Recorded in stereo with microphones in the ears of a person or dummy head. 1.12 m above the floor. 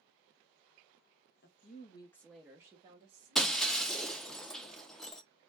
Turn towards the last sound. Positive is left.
turn(degrees=5)  # may be behind; listen again after turning